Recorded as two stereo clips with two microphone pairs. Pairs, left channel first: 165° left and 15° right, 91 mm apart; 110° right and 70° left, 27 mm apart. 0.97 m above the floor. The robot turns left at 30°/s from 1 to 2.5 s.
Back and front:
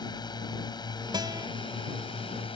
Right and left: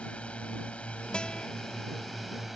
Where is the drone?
155° right; by 2.6 s 160° left.